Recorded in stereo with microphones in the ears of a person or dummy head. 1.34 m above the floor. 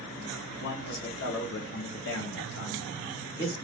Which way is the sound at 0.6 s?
55° left (ahead or behind).